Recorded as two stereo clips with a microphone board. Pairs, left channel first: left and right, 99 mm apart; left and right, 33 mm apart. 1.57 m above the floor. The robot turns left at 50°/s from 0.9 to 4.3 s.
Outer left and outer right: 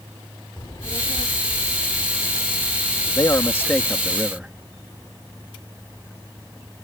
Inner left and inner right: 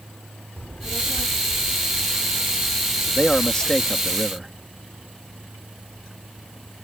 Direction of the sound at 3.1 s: 45° left.